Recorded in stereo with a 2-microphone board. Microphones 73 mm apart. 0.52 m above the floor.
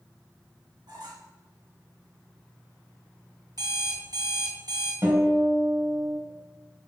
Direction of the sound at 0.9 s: 75° right (ahead or behind).